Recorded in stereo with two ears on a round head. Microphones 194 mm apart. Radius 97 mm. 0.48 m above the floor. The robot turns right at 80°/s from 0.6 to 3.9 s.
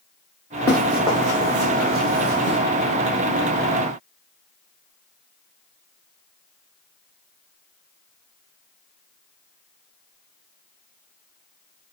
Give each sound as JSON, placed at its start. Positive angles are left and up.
{"t": 0.7, "sound": "running footsteps", "side_deg": 15, "distance_m": 2.5}